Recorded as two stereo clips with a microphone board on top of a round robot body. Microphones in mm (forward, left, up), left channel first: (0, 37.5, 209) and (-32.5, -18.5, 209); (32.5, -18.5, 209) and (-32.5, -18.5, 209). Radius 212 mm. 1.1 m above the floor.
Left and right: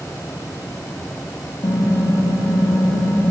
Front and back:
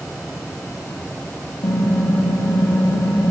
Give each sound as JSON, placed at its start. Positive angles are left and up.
{"t": 1.6, "sound": "typing on a keyboard", "azimuth_deg": 20, "distance_m": 1.3}